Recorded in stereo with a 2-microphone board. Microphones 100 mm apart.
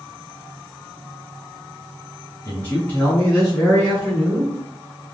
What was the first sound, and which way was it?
A man speaking, 20° left (ahead or behind).